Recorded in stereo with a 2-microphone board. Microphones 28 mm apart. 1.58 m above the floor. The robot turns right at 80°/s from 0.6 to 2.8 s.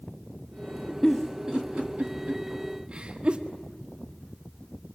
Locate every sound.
1.0 s a giggle: 10° left (ahead or behind), 1.6 m; by 3.4 s 40° right (ahead or behind), 1.6 m